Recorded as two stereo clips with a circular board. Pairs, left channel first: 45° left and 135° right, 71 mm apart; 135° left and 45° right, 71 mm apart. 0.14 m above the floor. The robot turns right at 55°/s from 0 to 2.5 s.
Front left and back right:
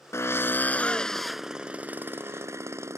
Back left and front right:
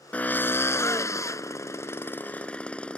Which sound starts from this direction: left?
A drill, at 0.1 s.